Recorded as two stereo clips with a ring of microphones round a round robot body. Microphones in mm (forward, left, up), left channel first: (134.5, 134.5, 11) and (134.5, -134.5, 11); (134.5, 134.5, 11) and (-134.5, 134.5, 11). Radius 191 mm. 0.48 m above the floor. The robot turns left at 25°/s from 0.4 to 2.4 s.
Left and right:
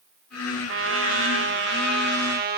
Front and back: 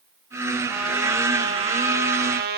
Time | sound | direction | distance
0.7 | a trumpet | 90° right | 1.6 m